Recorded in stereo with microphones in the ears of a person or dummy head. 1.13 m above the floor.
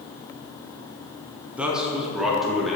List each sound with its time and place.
1.6 s a man speaking: 5° right (ahead or behind), 0.7 m; by 2.8 s 5° left (ahead or behind), 1.4 m